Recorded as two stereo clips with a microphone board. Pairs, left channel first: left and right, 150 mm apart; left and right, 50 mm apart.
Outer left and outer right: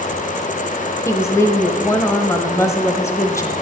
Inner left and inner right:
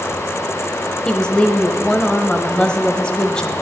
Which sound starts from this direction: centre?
A woman speaking, at 1.1 s.